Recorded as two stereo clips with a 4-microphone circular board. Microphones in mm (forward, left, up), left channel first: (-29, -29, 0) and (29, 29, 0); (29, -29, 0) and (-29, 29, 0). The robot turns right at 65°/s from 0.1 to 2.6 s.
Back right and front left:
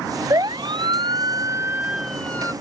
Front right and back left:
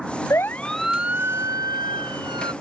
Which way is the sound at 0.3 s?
5° left.